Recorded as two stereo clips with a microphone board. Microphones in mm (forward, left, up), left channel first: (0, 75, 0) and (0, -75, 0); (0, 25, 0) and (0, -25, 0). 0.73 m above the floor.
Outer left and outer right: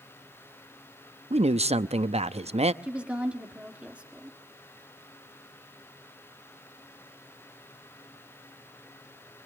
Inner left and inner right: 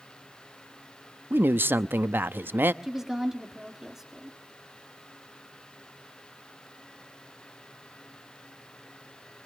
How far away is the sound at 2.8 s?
About 2.0 m.